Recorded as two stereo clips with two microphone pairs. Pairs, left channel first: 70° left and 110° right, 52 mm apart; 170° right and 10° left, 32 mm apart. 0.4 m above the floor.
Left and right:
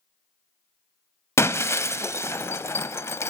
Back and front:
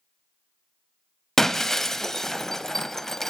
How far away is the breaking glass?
About 0.6 m.